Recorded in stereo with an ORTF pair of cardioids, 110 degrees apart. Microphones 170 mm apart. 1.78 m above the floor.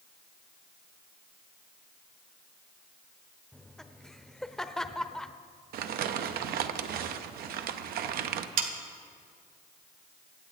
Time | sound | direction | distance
3.5 | laughter | 5° left | 0.8 m
5.7 | crumpling | 65° right | 0.8 m
8.6 | sawing | 60° right | 1.4 m